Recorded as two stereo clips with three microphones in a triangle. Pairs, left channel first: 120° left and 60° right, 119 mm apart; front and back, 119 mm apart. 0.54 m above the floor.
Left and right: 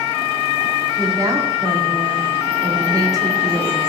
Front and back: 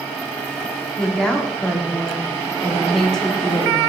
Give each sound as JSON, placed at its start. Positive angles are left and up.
{"t": 1.0, "sound": "a woman speaking", "azimuth_deg": -80, "distance_m": 1.1}